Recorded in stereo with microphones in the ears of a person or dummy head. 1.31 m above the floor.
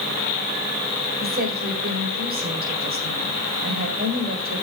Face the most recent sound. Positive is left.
turn(degrees=-50)  # may be behind; listen again after turning